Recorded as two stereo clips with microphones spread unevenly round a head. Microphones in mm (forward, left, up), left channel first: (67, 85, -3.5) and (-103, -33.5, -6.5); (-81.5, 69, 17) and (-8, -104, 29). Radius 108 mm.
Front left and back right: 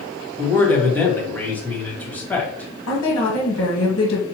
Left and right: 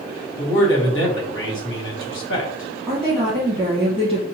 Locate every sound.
0.4 s a man speaking: 120° left, 1.7 m
2.9 s a woman speaking: 25° left, 1.4 m